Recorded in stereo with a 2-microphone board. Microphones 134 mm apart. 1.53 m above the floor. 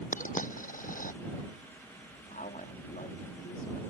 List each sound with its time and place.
0.1 s a dropped coin: 85° left
2.3 s a woman speaking: 80° left